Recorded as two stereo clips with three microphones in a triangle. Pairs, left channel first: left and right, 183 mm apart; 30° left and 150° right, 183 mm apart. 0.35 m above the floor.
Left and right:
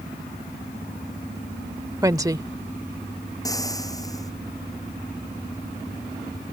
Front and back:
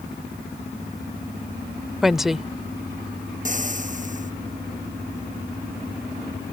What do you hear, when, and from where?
2.0 s a woman speaking: 65° right
3.5 s frying: 160° left